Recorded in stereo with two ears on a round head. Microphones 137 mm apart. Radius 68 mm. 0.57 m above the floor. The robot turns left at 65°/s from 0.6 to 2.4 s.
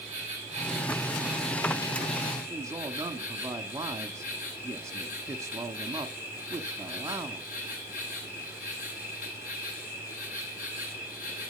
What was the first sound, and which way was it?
An insect, 130° right.